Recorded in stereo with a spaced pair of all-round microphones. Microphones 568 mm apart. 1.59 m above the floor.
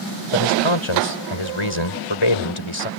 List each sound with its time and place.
0.3 s a man speaking: 55° left (ahead or behind)